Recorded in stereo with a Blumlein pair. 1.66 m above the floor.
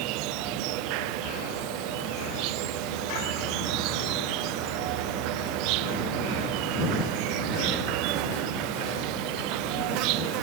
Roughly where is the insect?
Ahead right.